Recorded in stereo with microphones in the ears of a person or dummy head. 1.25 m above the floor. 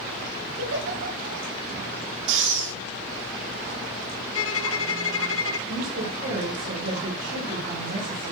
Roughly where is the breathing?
Right.